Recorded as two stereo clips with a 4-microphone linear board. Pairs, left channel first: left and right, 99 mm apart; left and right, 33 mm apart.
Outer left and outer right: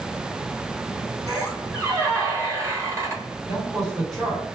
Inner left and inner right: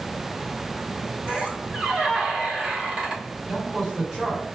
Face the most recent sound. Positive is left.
turn(degrees=0)  # may be behind; listen again after turning